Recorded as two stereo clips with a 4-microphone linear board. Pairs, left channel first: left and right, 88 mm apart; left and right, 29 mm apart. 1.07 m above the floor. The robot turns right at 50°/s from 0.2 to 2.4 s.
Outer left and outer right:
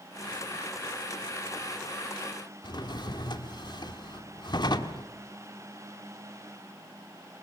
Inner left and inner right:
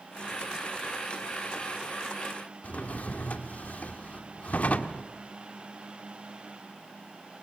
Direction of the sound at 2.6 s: 55° left (ahead or behind).